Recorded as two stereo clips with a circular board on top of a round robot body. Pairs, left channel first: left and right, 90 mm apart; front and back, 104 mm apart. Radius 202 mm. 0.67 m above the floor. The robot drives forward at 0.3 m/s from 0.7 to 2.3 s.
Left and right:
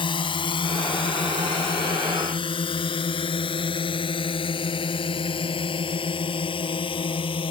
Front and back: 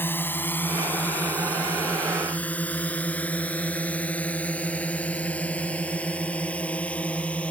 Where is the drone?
70° left; by 7.5 s 80° left.